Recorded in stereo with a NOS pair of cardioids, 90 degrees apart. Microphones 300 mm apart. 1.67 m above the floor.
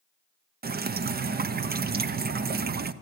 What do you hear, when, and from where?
0.6 s dripping: 35° right, 0.7 m